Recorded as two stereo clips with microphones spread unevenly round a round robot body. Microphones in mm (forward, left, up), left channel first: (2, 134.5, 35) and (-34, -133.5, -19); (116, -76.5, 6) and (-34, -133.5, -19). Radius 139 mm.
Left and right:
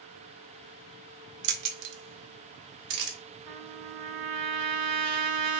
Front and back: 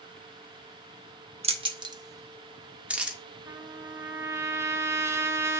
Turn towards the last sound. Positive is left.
turn(degrees=-85)